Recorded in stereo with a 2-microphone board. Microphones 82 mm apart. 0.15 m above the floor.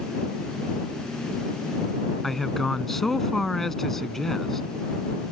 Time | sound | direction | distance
2.2 | a man speaking | 5° left (ahead or behind) | ?